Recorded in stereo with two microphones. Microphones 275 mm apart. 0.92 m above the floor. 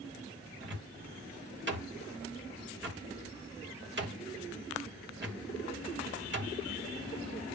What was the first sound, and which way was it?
A cupboard door, 40° right (ahead or behind).